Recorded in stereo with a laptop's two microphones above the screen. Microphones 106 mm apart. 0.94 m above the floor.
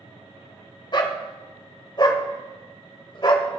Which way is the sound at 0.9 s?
45° left (ahead or behind).